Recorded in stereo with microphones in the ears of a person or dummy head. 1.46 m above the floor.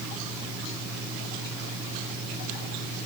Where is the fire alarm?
I don't hear a fire alarm.